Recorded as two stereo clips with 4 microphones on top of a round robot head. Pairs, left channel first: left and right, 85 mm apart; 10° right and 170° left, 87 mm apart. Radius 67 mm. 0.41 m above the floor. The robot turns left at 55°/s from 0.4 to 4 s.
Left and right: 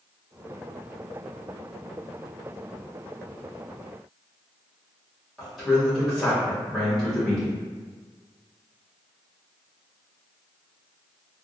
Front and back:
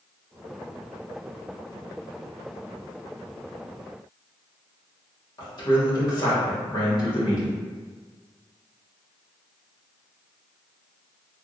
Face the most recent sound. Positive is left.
turn(degrees=0)